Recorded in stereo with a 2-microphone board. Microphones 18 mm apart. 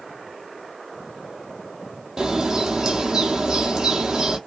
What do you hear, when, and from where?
2.2 s a bird: 50° right (ahead or behind), 0.8 m